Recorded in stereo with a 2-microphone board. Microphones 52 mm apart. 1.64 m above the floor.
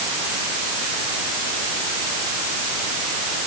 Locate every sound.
Only background noise.